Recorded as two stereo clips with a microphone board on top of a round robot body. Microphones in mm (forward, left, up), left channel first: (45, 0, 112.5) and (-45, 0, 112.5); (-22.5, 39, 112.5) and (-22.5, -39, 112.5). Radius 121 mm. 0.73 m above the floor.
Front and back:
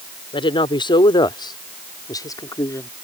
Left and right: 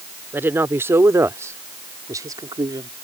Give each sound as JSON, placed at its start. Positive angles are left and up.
{"t": 0.3, "sound": "a woman speaking", "azimuth_deg": -25}